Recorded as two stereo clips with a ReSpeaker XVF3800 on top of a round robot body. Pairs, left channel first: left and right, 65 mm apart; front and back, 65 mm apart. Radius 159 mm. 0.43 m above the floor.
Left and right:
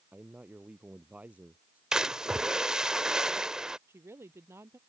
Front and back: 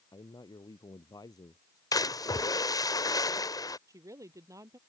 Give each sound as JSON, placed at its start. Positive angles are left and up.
{"t": 0.1, "sound": "a man speaking", "azimuth_deg": -20}
{"t": 1.9, "sound": "a splash", "azimuth_deg": -10}
{"t": 3.9, "sound": "a woman speaking", "azimuth_deg": -145}